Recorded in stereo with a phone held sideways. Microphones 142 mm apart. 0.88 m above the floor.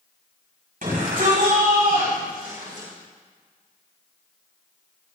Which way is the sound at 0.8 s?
80° right.